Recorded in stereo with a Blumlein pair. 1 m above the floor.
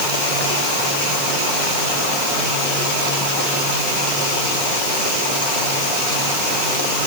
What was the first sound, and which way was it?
Only background noise.